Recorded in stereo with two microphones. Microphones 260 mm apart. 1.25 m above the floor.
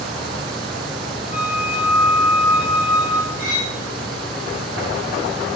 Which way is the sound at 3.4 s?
55° left (ahead or behind).